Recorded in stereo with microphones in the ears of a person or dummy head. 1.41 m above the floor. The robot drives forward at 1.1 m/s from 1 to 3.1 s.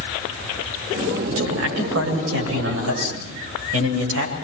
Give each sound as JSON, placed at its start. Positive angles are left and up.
{"t": 1.3, "sound": "a man speaking", "side_deg": -85, "distance_m": 8.5}